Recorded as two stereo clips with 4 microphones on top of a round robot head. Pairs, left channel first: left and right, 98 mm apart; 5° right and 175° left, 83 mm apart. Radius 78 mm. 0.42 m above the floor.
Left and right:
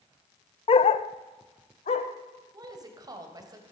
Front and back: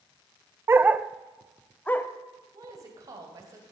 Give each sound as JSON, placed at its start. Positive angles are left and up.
{"t": 0.7, "sound": "a dog barking", "azimuth_deg": 115, "distance_m": 0.6}
{"t": 2.5, "sound": "a woman speaking", "azimuth_deg": -135, "distance_m": 3.0}